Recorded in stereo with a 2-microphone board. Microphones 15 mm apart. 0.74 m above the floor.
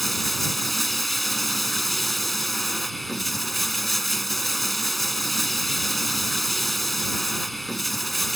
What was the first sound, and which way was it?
Running water, 10° left (ahead or behind).